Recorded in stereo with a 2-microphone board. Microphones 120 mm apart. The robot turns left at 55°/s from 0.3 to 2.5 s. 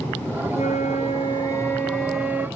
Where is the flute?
90° left, 0.8 m; by 2.5 s 20° right, 0.8 m.